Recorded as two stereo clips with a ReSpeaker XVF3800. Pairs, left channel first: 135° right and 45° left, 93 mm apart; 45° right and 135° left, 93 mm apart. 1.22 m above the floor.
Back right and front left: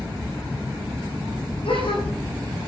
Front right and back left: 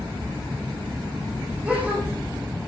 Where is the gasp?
150° right, 10 m.